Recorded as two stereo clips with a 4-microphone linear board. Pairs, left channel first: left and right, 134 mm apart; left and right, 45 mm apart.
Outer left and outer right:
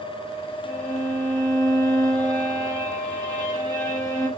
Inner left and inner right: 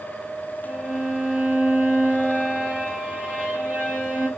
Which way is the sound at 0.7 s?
30° right (ahead or behind).